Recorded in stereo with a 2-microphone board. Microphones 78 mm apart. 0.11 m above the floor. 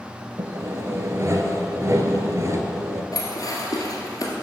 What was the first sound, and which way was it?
Sawing, 40° right (ahead or behind).